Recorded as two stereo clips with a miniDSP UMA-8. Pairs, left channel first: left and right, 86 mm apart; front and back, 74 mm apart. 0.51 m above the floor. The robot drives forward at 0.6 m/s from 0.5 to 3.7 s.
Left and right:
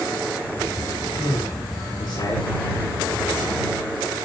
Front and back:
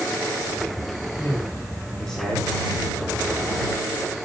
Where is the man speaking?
60° left, 2 m; by 2.5 s 90° left, 1.9 m.